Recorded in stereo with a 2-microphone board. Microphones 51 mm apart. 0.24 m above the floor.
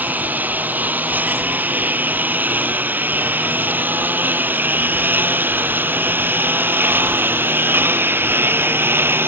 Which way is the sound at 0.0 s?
35° right (ahead or behind).